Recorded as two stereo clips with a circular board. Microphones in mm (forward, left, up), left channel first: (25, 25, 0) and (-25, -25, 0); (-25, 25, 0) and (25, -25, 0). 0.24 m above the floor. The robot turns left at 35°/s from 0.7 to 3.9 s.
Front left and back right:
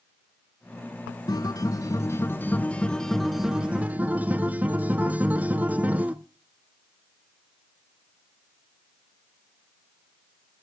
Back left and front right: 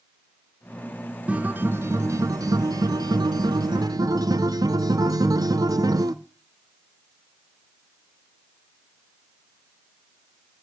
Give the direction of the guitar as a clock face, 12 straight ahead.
11 o'clock.